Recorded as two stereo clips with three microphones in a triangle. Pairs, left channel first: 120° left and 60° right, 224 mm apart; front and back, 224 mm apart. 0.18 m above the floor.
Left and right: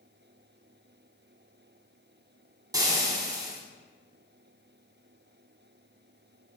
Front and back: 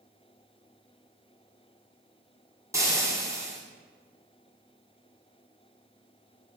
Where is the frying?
120° right, 1.4 m.